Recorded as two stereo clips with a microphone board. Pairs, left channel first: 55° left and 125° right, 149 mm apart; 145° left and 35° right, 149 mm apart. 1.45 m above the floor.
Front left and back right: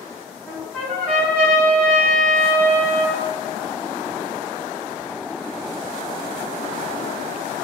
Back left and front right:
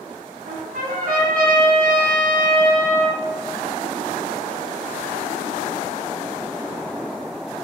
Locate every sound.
0.5 s a trumpet: 25° right, 1.6 m